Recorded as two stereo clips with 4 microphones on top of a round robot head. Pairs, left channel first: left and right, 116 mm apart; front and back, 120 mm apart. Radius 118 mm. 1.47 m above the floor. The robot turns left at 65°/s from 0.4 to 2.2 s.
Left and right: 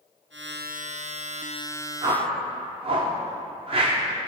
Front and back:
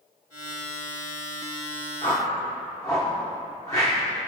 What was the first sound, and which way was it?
A whoosh, 60° right.